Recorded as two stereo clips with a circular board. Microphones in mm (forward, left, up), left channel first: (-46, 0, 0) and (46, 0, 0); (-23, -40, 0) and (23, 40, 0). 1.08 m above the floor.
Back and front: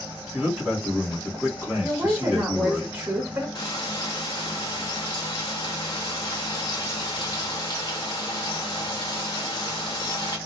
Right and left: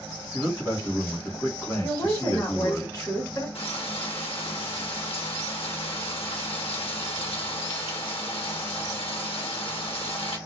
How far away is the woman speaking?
About 1.5 m.